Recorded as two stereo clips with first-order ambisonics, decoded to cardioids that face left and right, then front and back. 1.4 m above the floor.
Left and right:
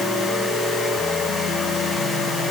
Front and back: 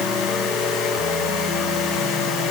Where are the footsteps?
I don't hear footsteps.